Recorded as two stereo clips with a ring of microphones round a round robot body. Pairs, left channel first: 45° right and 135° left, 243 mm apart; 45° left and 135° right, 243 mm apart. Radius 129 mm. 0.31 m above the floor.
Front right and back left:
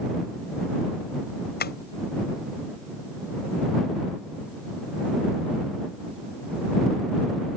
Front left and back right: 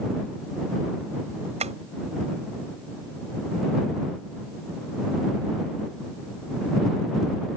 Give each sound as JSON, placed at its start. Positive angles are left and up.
{"t": 1.6, "sound": "tapping", "azimuth_deg": -80}